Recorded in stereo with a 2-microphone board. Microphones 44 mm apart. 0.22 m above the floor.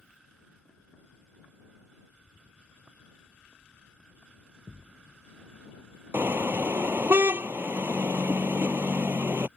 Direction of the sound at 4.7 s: 50° right (ahead or behind).